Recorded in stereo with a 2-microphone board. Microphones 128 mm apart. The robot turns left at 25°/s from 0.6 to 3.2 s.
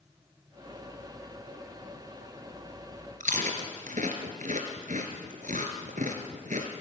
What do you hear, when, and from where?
3.2 s chewing: 75° right (ahead or behind), 3 m